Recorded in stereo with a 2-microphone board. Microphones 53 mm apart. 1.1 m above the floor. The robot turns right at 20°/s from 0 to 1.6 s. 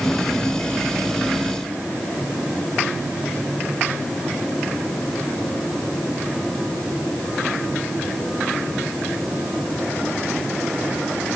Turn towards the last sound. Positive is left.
No sound to turn to.